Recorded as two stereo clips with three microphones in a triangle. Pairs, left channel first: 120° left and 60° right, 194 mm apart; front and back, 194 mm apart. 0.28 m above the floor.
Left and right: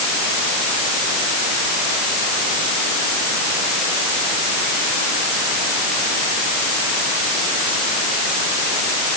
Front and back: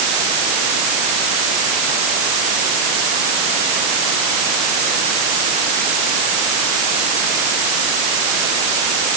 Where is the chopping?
I don't hear chopping.